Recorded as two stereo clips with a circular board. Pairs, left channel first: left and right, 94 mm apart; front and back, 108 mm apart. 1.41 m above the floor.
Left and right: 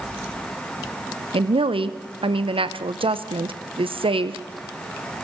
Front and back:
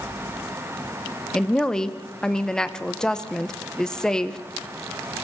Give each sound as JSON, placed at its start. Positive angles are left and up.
{"t": 1.3, "sound": "a woman speaking", "azimuth_deg": -85, "distance_m": 0.7}